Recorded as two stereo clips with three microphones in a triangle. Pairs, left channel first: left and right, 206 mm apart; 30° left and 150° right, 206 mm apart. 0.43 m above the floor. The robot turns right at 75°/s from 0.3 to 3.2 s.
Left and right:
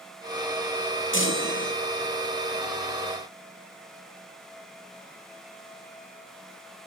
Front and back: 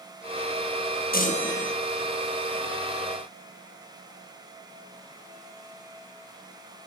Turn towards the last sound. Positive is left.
turn(degrees=-135)